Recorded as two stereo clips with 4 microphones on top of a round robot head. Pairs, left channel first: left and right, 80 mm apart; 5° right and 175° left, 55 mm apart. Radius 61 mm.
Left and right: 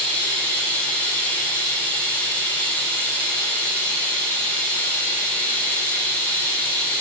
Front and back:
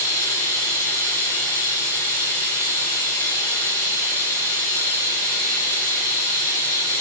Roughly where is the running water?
Ahead.